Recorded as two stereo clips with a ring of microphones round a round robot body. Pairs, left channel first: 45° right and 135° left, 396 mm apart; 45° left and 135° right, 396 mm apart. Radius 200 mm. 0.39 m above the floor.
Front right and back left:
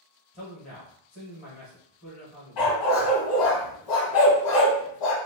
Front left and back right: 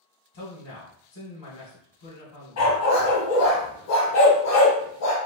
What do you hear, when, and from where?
0.3 s a man speaking: 15° left, 1.4 m
2.6 s a dog barking: 10° right, 1.3 m